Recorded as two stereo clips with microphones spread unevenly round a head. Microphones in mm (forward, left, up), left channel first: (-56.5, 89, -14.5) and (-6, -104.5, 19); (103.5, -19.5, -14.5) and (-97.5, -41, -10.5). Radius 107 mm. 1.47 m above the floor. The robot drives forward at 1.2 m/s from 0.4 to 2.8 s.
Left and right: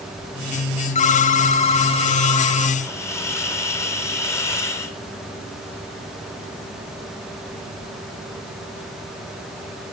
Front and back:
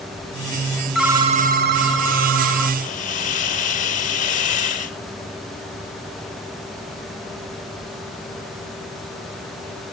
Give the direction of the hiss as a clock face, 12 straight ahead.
11 o'clock.